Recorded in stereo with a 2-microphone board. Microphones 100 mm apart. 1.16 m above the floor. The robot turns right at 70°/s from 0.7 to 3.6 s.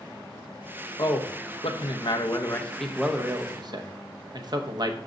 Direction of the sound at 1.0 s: 45° left.